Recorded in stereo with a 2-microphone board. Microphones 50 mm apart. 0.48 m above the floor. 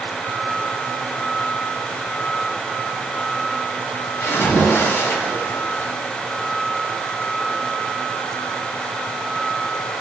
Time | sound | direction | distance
4.2 | a splash | 50° left (ahead or behind) | 1.7 m